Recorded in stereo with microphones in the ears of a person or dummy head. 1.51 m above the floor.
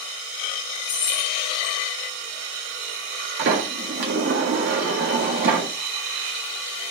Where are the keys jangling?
65° left (ahead or behind), 3 m.